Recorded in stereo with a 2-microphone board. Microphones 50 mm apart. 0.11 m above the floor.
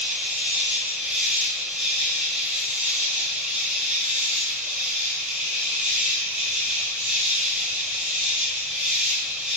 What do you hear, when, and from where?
0.0 s an insect: 25° right (ahead or behind), 1.6 m